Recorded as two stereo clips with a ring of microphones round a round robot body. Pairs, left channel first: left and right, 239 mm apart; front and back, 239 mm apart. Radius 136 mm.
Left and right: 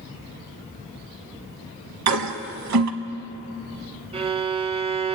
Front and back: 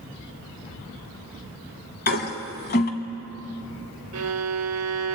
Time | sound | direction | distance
2.1 | a toilet flushing | 60° right | 0.8 m
4.1 | a violin | 155° right | 0.8 m